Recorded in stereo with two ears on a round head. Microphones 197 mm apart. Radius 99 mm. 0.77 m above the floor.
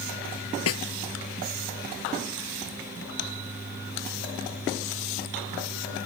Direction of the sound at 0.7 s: 75° left (ahead or behind).